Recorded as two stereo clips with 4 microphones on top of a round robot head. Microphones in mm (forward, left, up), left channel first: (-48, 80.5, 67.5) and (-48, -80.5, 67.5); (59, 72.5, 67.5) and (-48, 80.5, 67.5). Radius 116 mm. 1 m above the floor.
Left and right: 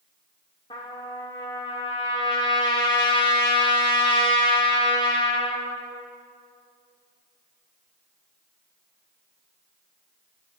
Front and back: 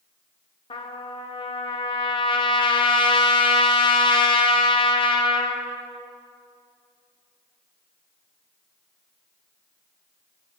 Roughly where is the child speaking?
I don't hear a child speaking.